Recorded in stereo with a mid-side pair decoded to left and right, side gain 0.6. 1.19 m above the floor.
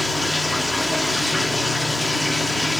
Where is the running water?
10° left, 1.4 m.